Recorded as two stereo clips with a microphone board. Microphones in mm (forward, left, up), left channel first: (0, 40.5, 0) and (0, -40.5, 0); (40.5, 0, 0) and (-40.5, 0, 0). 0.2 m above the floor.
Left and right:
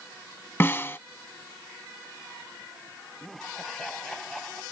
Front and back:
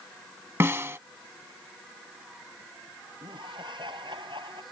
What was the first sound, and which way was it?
A snare drum, 135° left.